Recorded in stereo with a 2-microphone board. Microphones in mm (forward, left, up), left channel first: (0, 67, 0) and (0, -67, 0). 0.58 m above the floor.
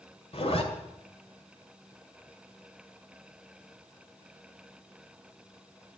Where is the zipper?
50° left (ahead or behind), 2 m.